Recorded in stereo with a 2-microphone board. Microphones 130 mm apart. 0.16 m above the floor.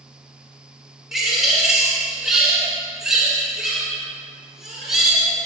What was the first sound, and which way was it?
A bird, 5° right (ahead or behind).